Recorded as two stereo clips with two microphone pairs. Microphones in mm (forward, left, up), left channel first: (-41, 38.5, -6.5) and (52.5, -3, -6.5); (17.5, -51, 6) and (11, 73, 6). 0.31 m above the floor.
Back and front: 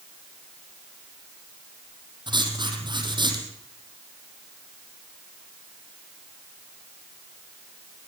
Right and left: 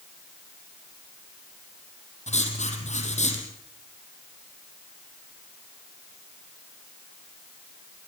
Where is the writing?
65° right, 4.5 m.